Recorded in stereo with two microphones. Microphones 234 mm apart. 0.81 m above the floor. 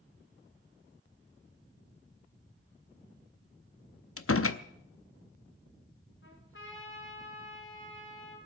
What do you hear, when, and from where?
4.2 s a door slam: 65° left (ahead or behind), 0.7 m
6.2 s a trumpet: 55° left (ahead or behind), 6 m